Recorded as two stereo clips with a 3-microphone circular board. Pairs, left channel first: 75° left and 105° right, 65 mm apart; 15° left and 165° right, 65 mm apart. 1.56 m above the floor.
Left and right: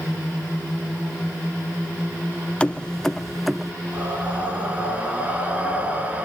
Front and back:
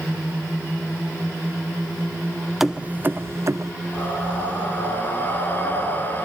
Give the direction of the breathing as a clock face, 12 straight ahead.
1 o'clock.